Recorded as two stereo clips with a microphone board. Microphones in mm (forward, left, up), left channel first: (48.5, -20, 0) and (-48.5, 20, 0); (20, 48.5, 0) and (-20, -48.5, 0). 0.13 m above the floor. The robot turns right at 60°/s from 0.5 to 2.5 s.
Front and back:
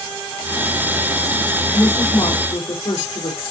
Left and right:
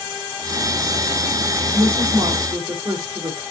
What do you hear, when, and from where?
1.7 s a woman speaking: 100° right, 4.5 m; by 3.4 s 55° right, 4.5 m